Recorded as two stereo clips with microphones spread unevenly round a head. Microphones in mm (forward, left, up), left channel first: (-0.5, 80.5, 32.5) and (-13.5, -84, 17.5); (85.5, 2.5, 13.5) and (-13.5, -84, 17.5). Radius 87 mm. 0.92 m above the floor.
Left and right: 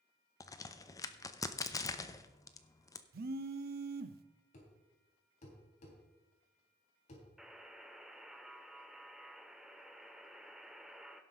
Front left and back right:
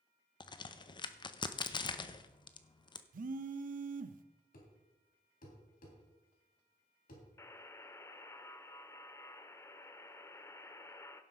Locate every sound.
0.4 s a crack: 20° left, 0.7 m
3.1 s a phone buzzing: 125° right, 0.7 m
4.5 s a thud: 35° left, 3 m
7.4 s a buzzer: straight ahead, 0.6 m